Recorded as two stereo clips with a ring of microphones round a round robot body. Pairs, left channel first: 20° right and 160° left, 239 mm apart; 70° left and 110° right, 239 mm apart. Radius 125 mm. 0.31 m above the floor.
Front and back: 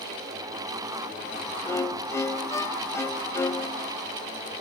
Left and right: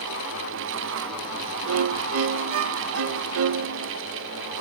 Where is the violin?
100° right.